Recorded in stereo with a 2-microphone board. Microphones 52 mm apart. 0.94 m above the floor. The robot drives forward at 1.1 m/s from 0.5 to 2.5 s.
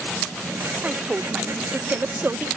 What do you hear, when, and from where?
0.8 s a woman speaking: 20° right (ahead or behind); by 2.5 s 40° right (ahead or behind)